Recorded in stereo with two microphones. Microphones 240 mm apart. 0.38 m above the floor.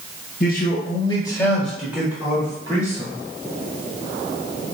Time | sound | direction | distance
0.4 | a man speaking | 40° left (ahead or behind) | 1.3 m